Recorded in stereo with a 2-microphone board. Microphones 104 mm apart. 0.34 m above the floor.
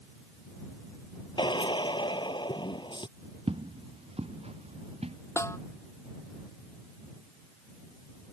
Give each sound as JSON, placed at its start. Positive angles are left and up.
{"t": 1.4, "sound": "a drill", "side_deg": 45}
{"t": 3.5, "sound": "footsteps", "side_deg": -65}
{"t": 5.4, "sound": "a snare drum", "side_deg": 25}